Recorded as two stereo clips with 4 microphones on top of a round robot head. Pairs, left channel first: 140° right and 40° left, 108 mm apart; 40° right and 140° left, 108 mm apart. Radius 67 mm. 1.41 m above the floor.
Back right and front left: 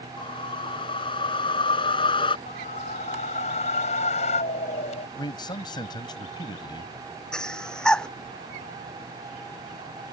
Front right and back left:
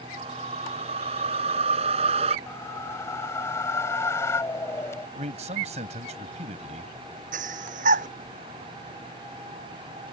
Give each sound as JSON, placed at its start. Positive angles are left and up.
{"t": 0.2, "sound": "a whoosh", "azimuth_deg": 175}
{"t": 2.5, "sound": "a whoosh", "azimuth_deg": -110}
{"t": 5.2, "sound": "a man speaking", "azimuth_deg": 170}
{"t": 7.3, "sound": "breathing", "azimuth_deg": 135}